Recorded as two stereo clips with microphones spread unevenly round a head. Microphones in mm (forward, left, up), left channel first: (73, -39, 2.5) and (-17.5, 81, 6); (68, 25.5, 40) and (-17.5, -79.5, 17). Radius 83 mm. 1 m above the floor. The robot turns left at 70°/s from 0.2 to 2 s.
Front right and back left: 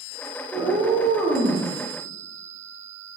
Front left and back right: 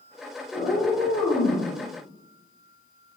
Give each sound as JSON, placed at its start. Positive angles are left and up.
{"t": 0.5, "sound": "a cat meowing", "azimuth_deg": 75, "distance_m": 0.6}